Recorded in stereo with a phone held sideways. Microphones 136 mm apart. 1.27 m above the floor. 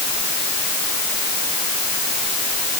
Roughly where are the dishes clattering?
No dishes clattering in this recording.